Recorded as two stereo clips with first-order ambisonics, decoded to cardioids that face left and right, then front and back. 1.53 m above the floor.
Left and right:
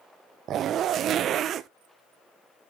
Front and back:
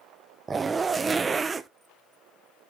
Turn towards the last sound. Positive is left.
turn(degrees=-110)